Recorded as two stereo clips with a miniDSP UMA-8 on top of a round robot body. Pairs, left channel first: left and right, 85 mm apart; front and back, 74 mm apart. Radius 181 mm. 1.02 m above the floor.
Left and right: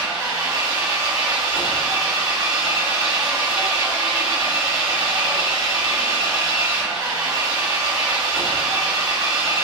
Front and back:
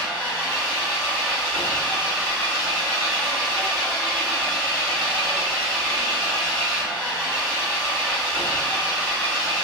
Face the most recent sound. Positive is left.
turn(degrees=-70)